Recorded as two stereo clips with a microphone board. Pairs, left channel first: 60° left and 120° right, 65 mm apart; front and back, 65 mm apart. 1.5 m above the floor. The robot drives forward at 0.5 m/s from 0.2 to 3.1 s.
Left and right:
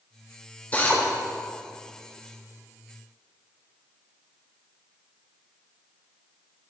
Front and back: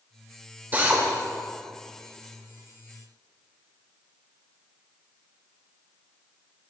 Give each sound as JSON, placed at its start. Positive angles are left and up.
{"t": 0.7, "sound": "a drill", "azimuth_deg": 120, "distance_m": 2.5}